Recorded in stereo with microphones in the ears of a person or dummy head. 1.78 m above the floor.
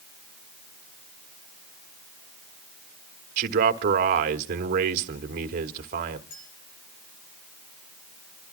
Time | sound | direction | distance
3.4 | a man speaking | 50° right (ahead or behind) | 1.2 m
6.3 | a clink | 45° left (ahead or behind) | 8.5 m